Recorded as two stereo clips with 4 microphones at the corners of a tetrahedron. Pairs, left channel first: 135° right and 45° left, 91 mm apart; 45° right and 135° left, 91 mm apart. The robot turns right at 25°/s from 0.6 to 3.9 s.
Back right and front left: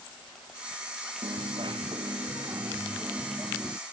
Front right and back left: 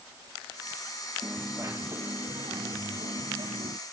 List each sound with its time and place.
1.2 s a dropped coin: 65° left; by 3.8 s 130° left